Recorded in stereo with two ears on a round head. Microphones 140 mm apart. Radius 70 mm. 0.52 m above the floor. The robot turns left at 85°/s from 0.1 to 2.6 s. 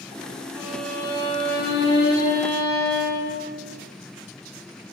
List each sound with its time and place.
0.6 s a violin: 160° right, 6 m; by 3.4 s 25° left, 6 m